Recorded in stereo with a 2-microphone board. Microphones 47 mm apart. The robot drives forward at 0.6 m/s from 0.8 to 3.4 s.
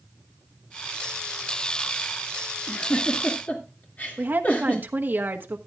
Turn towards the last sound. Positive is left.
turn(degrees=-45)  # may be behind; listen again after turning